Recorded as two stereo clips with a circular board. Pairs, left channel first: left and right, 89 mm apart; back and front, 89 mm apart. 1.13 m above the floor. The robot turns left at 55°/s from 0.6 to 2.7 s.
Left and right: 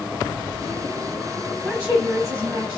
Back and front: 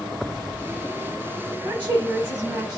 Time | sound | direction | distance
1.6 | a woman speaking | straight ahead | 1.4 m